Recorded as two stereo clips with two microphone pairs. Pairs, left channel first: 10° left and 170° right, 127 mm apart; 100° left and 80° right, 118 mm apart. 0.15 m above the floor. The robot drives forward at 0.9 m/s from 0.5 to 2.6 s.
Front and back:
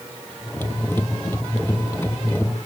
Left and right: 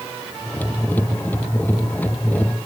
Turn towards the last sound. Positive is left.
No sound to turn to.